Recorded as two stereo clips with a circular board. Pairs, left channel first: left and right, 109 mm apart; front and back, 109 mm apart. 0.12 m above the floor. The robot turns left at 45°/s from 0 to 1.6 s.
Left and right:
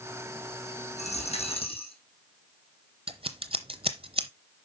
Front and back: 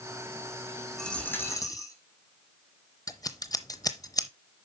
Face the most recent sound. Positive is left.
turn(degrees=-55)